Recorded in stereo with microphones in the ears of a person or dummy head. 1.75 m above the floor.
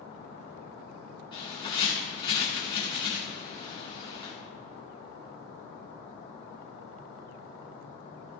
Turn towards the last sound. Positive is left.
turn(degrees=30)  # may be behind; listen again after turning